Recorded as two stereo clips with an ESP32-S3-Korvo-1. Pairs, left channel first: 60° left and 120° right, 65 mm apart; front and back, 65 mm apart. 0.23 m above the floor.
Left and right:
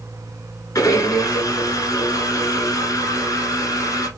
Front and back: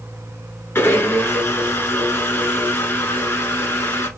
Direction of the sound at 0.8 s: 50° left.